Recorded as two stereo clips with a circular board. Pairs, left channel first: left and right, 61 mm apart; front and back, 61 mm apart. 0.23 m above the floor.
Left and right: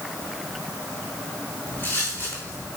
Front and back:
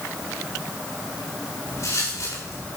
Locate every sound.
1.7 s footsteps: 35° left, 5 m